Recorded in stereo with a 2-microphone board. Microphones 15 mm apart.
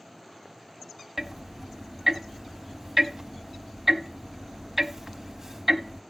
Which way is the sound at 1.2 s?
25° right (ahead or behind).